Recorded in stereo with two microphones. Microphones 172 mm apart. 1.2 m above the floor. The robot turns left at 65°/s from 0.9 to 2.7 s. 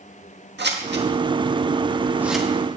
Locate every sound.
0.6 s scissors: 85° right, 1.7 m; by 2.5 s 5° left (ahead or behind), 1.7 m